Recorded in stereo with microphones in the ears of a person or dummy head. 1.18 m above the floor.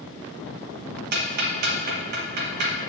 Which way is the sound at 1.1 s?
55° right (ahead or behind).